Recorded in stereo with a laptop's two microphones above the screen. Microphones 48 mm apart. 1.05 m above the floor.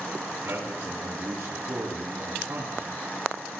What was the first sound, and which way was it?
A man speaking, 55° right (ahead or behind).